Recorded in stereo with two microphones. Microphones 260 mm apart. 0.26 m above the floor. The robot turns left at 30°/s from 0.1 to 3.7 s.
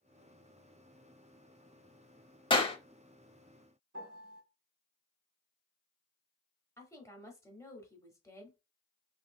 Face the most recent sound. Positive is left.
turn(degrees=10)  # may be behind; listen again after turning